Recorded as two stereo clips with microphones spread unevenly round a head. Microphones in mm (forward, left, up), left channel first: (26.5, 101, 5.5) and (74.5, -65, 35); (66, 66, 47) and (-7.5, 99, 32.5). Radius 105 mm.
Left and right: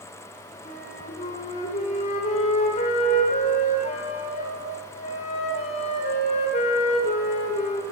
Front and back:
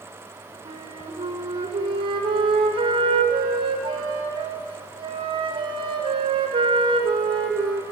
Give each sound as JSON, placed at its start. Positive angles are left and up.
{"t": 0.7, "sound": "a flute", "azimuth_deg": 165, "distance_m": 1.1}